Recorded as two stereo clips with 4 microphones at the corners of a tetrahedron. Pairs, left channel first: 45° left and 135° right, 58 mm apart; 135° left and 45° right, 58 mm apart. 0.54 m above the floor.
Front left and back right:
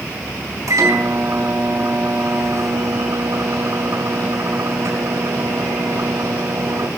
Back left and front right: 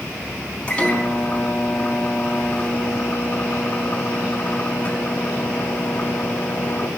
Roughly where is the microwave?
Behind right.